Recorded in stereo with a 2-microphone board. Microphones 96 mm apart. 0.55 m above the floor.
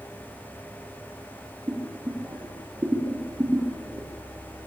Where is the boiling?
25° right (ahead or behind), 6 m.